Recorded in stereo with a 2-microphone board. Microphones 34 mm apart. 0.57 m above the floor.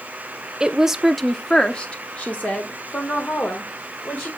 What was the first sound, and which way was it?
A woman speaking, 25° right (ahead or behind).